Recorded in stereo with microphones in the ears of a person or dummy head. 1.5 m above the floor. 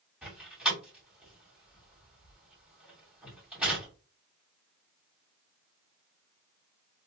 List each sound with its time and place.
0.2 s a door slam: 5° right (ahead or behind), 2.5 m